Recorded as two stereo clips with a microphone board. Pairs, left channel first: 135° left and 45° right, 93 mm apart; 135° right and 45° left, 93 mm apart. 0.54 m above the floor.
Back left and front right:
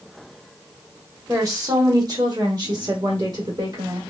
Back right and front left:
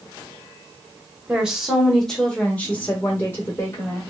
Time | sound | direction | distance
1.3 | a woman speaking | 25° right | 1.0 m